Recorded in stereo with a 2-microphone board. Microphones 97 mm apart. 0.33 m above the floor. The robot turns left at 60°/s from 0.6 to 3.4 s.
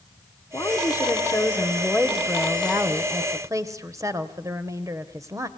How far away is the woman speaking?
About 1.1 m.